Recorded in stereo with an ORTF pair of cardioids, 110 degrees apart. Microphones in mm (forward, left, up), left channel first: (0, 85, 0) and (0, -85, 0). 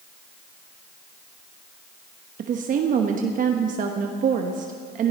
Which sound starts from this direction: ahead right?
A woman speaking, at 2.4 s.